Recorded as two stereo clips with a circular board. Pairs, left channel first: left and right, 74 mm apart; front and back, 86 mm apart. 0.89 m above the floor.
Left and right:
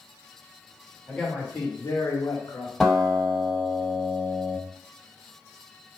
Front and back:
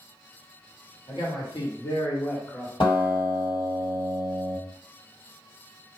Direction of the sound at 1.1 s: 15° left.